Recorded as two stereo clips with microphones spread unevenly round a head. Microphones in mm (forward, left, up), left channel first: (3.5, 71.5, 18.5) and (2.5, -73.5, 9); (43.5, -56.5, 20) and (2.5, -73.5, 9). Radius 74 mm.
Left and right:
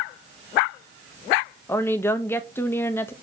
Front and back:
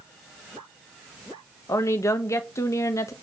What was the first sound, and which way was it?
A woman speaking, 15° left.